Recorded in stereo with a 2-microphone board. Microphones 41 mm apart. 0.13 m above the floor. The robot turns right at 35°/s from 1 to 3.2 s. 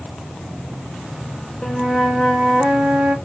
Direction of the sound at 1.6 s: 175° left.